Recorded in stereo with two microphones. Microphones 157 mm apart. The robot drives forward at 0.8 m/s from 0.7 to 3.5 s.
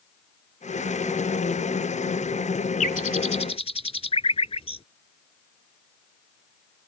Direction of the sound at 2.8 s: 55° left (ahead or behind).